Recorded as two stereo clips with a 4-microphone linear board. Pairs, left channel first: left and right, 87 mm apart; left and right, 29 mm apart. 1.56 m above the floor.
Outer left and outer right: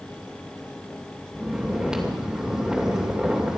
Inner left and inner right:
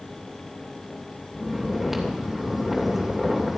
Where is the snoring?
10° right (ahead or behind), 2.5 m.